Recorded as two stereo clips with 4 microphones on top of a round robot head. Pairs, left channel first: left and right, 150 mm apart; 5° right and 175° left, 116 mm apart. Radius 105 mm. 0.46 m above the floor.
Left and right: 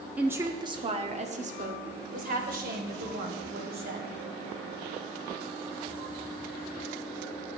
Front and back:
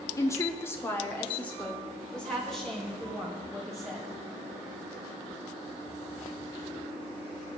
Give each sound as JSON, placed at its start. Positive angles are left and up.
{"t": 0.2, "sound": "a woman speaking", "azimuth_deg": -20, "distance_m": 1.0}